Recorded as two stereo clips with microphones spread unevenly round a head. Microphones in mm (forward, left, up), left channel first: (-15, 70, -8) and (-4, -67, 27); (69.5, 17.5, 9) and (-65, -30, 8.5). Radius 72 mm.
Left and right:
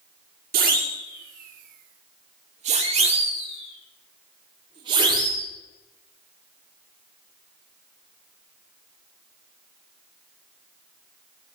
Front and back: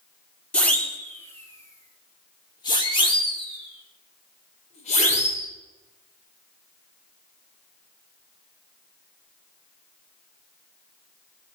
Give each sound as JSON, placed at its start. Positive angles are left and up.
{"t": 0.5, "sound": "a siren", "azimuth_deg": -60, "distance_m": 3.0}